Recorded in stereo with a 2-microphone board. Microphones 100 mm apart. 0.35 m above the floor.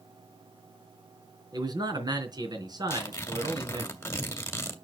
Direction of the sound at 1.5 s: 40° right (ahead or behind).